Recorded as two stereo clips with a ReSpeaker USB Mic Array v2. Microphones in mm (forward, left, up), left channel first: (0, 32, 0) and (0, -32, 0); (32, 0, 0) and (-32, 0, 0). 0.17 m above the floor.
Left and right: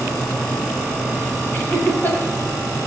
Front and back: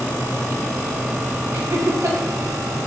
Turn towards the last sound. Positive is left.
turn(degrees=145)